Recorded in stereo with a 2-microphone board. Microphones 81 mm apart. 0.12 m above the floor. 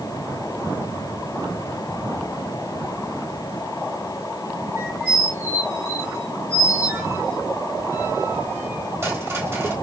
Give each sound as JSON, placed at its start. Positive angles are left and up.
{"t": 4.8, "sound": "a squeak", "side_deg": -30, "distance_m": 3.0}